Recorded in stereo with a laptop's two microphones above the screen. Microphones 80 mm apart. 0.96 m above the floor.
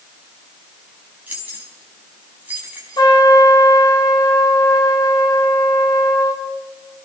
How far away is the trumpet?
About 2.5 m.